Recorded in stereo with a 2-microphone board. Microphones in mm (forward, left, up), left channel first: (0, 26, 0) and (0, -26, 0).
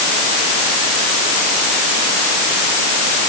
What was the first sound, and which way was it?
Only background noise.